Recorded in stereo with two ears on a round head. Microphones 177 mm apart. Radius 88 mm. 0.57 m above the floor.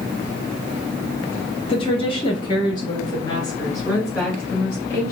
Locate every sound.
1.7 s a woman speaking: 30° left (ahead or behind), 0.7 m; by 5.1 s 15° left (ahead or behind), 2.5 m